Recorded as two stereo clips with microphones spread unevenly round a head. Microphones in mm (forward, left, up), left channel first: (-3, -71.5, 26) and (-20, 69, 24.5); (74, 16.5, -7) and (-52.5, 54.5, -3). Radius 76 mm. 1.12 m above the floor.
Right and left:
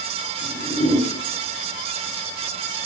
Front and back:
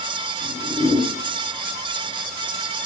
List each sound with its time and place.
0.4 s a whoosh: 65° right, 2.5 m